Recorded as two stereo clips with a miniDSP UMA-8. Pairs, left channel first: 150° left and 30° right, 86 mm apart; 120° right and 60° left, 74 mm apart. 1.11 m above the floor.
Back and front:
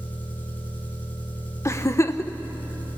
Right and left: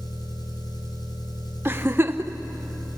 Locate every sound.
0.0 s an engine running: 140° right, 4.5 m
1.6 s a giggle: 110° left, 0.9 m